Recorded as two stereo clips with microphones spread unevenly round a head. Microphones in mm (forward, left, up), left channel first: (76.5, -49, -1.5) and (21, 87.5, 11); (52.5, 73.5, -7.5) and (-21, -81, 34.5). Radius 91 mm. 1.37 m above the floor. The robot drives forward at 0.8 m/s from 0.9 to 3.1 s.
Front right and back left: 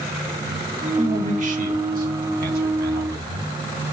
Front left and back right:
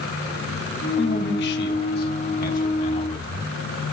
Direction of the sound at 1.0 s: 75° left.